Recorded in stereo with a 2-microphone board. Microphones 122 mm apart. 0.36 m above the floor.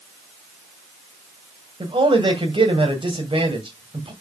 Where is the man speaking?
50° right (ahead or behind), 2 m.